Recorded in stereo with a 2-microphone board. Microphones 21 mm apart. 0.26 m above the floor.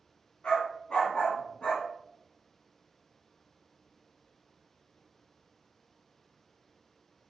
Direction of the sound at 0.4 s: 60° left (ahead or behind).